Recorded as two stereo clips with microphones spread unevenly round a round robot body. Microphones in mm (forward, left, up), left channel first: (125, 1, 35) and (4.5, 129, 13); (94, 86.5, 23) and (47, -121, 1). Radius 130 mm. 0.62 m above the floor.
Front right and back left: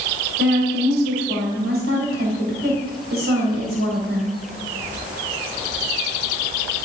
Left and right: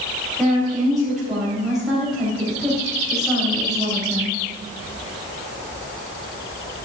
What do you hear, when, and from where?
0.4 s a woman speaking: 170° left, 3.5 m